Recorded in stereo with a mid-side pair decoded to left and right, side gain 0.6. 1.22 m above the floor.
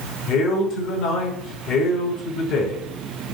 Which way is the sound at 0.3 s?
55° left.